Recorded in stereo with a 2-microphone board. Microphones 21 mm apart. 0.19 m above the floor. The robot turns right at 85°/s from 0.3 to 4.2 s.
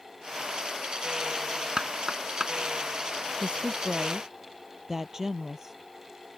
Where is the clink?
I don't hear a clink.